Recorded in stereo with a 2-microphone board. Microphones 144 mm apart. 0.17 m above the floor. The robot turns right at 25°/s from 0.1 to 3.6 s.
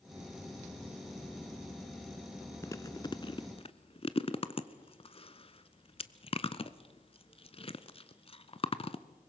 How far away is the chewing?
About 0.6 m.